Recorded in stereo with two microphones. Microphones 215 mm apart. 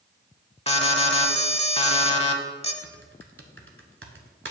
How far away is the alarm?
About 0.7 m.